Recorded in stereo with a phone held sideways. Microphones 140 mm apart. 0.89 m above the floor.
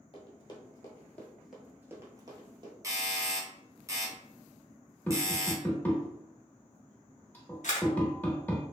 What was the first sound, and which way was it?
Running footsteps, 40° left (ahead or behind).